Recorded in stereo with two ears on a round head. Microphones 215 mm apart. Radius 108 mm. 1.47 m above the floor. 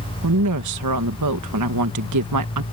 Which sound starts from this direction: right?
A woman speaking, at 0.2 s.